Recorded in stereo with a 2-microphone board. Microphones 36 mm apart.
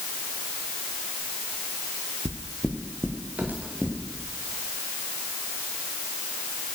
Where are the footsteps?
55° right (ahead or behind), 1.8 m; by 4.0 s 45° right (ahead or behind), 3 m.